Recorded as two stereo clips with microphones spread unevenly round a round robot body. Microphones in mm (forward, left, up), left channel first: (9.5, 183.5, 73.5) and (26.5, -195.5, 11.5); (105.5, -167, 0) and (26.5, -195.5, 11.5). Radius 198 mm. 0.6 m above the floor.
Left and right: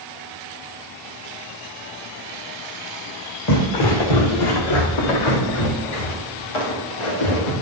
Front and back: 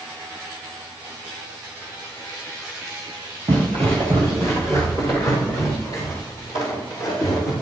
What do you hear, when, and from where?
3.5 s footsteps: 135° left, 2 m; by 7.5 s 95° left, 6 m